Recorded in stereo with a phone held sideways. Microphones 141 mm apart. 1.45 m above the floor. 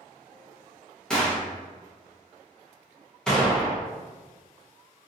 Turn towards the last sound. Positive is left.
turn(degrees=5)  # may be behind; listen again after turning